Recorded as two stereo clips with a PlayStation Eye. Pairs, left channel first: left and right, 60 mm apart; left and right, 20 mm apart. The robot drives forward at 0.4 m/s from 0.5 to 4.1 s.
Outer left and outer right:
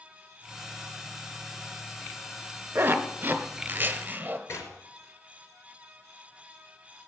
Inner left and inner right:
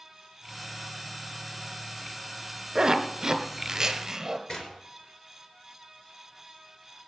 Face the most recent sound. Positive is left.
turn(degrees=55)  # may be behind; listen again after turning